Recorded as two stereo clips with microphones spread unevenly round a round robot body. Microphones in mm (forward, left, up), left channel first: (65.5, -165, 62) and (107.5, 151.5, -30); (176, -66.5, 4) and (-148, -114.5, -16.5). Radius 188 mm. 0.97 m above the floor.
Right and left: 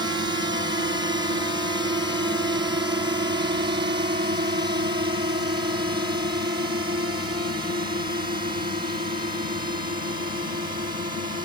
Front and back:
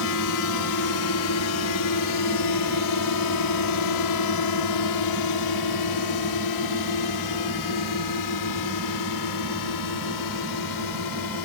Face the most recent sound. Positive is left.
turn(degrees=15)